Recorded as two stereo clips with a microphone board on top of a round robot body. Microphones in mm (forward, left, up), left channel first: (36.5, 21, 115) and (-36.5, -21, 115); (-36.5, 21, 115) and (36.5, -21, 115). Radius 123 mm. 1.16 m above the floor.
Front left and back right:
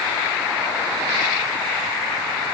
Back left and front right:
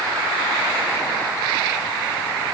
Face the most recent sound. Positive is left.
No sound to turn to.